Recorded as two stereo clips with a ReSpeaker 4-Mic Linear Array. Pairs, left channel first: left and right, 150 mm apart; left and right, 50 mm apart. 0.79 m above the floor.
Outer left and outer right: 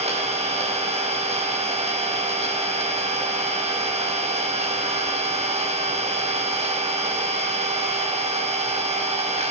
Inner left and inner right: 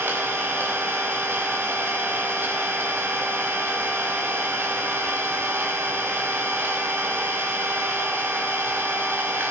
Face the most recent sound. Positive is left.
turn(degrees=-45)  # may be behind; listen again after turning